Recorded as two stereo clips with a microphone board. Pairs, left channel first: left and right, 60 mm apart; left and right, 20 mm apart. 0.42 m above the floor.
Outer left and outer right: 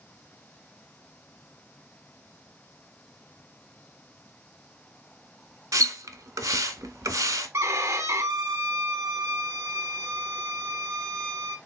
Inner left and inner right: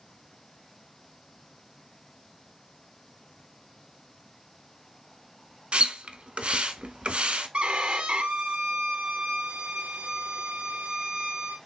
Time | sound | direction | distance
5.7 | a splash | 75° right (ahead or behind) | 0.7 m
7.5 | a violin | 60° right (ahead or behind) | 0.7 m